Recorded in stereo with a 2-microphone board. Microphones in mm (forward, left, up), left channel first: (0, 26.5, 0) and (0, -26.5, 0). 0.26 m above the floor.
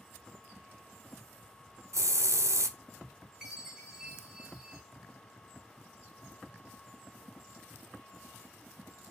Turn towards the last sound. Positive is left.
turn(degrees=-10)  # may be behind; listen again after turning